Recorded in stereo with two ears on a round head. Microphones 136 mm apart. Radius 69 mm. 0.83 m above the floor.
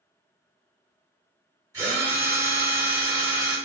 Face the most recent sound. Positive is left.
turn(degrees=-25)  # may be behind; listen again after turning